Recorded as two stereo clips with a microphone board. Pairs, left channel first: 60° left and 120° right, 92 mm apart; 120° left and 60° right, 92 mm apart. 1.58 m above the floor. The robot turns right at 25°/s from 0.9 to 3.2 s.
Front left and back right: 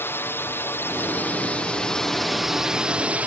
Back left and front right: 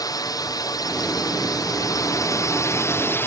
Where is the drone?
115° left; by 3.3 s 170° left.